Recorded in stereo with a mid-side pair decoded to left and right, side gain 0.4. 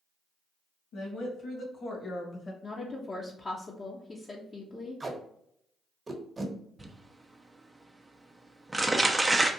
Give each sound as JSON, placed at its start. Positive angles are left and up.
{"t": 0.9, "sound": "a woman speaking", "azimuth_deg": 70, "distance_m": 1.9}
{"t": 2.6, "sound": "a woman speaking", "azimuth_deg": 40, "distance_m": 0.8}
{"t": 5.0, "sound": "tape being pulled", "azimuth_deg": -30, "distance_m": 1.2}
{"t": 6.8, "sound": "crumpling", "azimuth_deg": -15, "distance_m": 0.7}